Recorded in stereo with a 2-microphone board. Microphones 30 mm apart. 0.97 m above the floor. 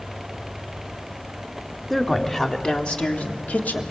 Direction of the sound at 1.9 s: 10° left (ahead or behind).